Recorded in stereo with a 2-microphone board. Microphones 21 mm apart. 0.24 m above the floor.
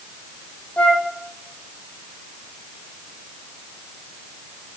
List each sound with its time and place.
0.8 s a flute: 90° left, 1.6 m